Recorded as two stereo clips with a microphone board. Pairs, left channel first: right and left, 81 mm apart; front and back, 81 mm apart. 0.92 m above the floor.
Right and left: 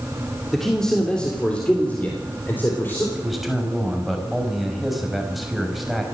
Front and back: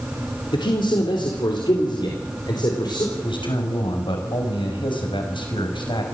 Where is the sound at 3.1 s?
Straight ahead, 5.5 m.